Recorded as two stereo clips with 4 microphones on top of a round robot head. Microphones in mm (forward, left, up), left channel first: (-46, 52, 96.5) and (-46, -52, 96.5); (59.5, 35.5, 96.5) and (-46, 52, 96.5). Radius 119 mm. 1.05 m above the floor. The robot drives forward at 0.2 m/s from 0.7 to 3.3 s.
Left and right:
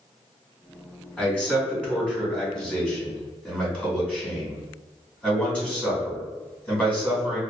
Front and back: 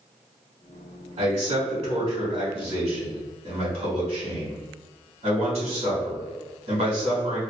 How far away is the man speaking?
About 1.8 m.